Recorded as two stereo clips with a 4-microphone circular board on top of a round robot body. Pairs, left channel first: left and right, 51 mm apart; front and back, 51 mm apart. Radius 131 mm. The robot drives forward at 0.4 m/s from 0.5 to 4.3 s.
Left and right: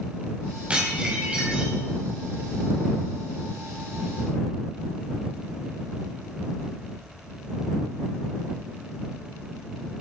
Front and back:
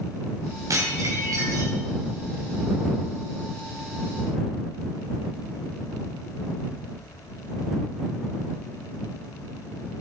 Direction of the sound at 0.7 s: 160° right.